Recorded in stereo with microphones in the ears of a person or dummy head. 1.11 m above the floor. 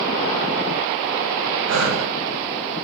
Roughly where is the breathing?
Right.